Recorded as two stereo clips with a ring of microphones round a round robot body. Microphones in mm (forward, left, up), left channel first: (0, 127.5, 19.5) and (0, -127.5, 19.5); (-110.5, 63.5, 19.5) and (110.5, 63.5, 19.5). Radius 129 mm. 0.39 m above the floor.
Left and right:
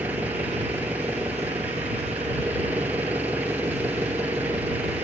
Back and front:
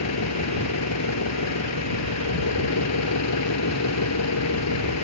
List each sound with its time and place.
0.0 s an engine running: 175° right